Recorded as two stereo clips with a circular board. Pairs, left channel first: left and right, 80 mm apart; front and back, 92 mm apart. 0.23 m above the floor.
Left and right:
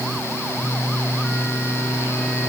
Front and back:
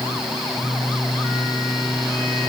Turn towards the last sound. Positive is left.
No sound to turn to.